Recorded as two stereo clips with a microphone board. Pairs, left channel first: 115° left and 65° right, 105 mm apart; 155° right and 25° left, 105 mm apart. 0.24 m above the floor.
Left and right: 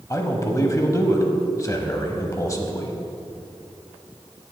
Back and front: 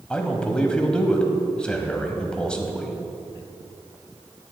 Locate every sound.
0.1 s a man speaking: 130° left, 1.1 m